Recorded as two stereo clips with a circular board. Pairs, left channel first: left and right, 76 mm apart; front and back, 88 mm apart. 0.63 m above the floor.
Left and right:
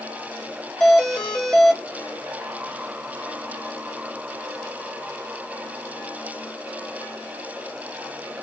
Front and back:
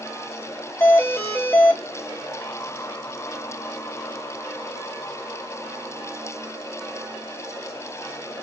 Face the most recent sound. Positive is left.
turn(degrees=15)